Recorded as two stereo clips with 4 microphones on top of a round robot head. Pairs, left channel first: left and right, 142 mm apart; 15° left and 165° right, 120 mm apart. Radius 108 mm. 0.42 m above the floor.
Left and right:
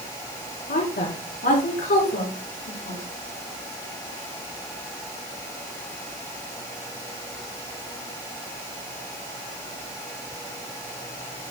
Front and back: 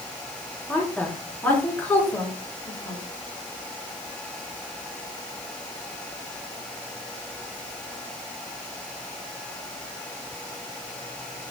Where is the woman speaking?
90° left, 5 m; by 3.0 s 85° left, 5.5 m.